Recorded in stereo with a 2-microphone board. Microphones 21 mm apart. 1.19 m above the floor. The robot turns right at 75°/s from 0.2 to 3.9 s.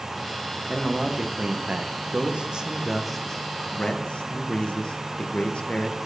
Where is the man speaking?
175° right, 0.7 m; by 6.0 s 65° left, 0.7 m.